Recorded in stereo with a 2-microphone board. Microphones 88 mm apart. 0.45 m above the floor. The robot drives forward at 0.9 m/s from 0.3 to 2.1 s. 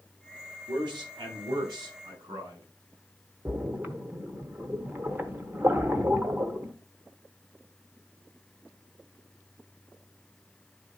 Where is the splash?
20° right (ahead or behind), 0.9 m.